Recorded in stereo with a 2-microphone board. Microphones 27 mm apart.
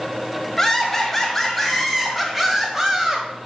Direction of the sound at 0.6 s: 10° left (ahead or behind).